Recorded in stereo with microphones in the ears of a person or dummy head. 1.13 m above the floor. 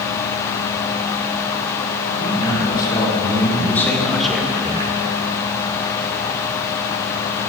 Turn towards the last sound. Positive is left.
turn(degrees=-30)  # may be behind; listen again after turning